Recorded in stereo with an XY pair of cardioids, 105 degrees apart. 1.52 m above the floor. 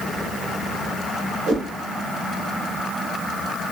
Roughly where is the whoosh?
Ahead right.